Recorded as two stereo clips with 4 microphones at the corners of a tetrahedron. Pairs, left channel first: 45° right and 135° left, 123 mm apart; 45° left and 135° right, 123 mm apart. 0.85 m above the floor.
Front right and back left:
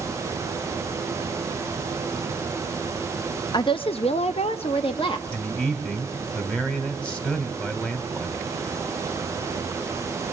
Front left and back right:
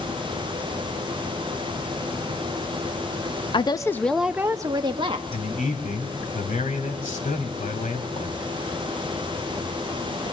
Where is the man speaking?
35° left, 2.5 m.